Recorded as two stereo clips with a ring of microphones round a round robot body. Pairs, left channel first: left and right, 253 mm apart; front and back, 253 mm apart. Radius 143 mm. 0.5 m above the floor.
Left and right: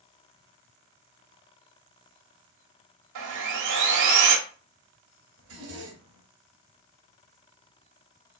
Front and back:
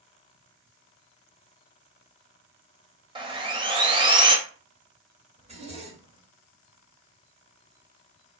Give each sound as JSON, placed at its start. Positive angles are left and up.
{"t": 3.1, "sound": "sawing", "azimuth_deg": -110, "distance_m": 1.2}
{"t": 5.4, "sound": "a zipper", "azimuth_deg": -115, "distance_m": 2.0}